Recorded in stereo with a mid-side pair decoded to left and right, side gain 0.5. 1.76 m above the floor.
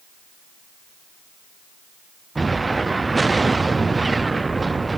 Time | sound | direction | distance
2.4 | an explosion | 20° right | 0.6 m